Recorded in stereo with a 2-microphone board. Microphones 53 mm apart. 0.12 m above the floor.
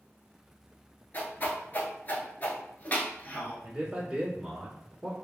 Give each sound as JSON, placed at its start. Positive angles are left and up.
{"t": 1.1, "sound": "a whoosh", "side_deg": 35, "distance_m": 0.8}
{"t": 3.6, "sound": "a man speaking", "side_deg": -20, "distance_m": 1.2}